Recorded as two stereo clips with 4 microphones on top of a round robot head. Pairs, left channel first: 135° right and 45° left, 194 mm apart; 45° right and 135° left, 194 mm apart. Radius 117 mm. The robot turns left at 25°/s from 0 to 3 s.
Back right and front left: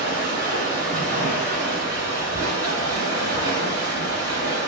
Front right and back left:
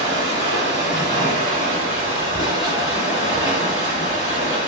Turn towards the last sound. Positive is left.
turn(degrees=50)